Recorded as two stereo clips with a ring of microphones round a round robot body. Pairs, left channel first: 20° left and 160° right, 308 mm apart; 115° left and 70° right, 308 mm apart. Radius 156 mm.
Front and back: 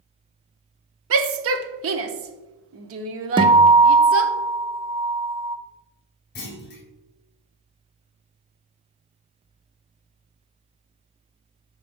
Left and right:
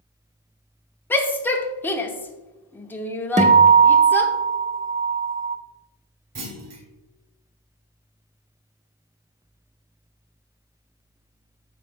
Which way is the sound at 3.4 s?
100° right.